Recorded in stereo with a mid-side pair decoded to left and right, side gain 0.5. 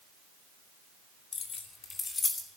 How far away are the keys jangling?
About 2.5 m.